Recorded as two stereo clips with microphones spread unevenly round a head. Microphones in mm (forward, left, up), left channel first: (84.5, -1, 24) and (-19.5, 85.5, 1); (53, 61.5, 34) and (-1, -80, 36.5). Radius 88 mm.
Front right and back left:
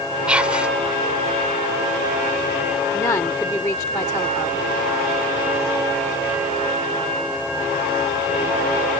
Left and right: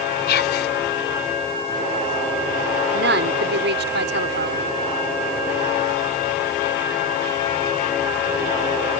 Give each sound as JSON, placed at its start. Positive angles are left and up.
{"t": 0.3, "sound": "whispering", "azimuth_deg": 55}
{"t": 2.9, "sound": "a woman speaking", "azimuth_deg": -110}